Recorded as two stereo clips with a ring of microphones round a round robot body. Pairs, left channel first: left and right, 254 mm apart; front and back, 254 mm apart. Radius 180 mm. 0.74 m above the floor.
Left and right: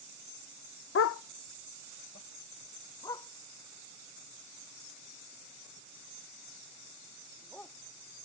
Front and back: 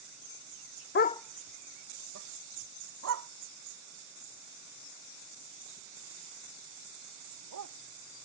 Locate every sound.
0.9 s a dog barking: 50° left; by 7.7 s 175° left